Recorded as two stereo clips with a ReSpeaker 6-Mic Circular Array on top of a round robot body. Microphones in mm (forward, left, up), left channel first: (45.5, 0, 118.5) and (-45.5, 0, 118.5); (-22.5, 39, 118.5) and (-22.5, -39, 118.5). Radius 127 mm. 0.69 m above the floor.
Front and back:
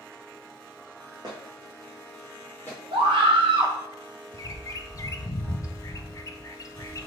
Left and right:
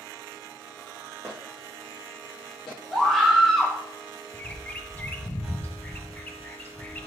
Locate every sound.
1.2 s footsteps: 145° left, 0.9 m; by 2.8 s 70° left, 1.6 m
2.9 s a scream: straight behind, 1.5 m
4.3 s a bird: 30° left, 0.5 m